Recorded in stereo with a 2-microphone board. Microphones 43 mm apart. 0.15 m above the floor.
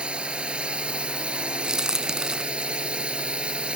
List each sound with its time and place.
0.0 s a drone: 25° right (ahead or behind)
1.6 s a crack: 15° right (ahead or behind)